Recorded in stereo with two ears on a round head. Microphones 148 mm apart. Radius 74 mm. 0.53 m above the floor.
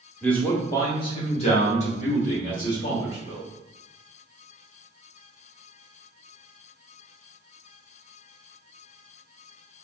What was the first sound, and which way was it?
A man speaking, 5° left (ahead or behind).